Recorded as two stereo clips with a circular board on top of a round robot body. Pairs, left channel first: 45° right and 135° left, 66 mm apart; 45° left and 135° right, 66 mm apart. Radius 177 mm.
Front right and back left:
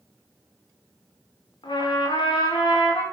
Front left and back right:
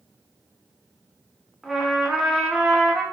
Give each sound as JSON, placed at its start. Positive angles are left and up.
{"t": 1.6, "sound": "a trumpet", "azimuth_deg": -50, "distance_m": 0.8}